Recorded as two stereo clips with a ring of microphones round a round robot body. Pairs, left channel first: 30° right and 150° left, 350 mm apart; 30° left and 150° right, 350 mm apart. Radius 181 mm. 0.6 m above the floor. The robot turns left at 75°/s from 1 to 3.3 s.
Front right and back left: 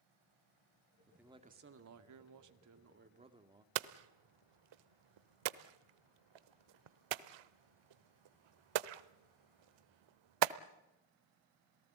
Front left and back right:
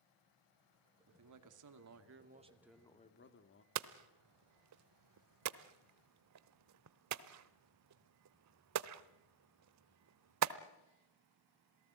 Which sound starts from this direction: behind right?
A man speaking, at 1.1 s.